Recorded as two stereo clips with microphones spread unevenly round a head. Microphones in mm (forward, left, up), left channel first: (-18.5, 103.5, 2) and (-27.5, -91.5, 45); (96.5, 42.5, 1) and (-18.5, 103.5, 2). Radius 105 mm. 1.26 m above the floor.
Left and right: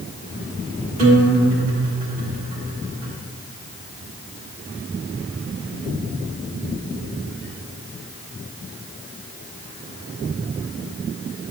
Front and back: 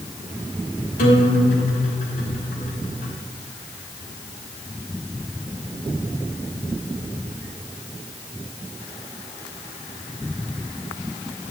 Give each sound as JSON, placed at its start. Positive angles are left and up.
{"t": 1.0, "sound": "a guitar", "azimuth_deg": -35, "distance_m": 3.0}